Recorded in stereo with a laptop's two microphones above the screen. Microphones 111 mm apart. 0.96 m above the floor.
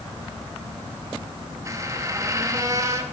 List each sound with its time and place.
1.6 s a squeak: 30° right (ahead or behind), 0.8 m